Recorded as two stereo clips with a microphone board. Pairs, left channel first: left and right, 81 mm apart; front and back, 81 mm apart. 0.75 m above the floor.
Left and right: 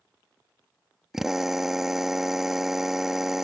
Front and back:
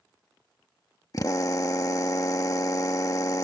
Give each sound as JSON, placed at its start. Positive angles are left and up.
{"t": 1.1, "sound": "a drill", "azimuth_deg": -10}